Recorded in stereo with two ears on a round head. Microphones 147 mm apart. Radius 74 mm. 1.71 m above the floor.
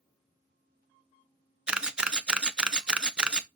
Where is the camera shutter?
5° right (ahead or behind), 0.6 m.